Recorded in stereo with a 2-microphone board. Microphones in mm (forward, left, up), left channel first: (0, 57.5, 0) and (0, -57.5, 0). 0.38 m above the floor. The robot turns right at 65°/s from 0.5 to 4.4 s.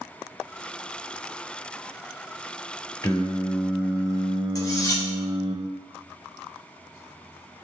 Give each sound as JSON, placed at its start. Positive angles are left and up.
{"t": 3.0, "sound": "singing", "azimuth_deg": 145, "distance_m": 0.5}
{"t": 4.5, "sound": "cutlery clinking", "side_deg": 30, "distance_m": 0.6}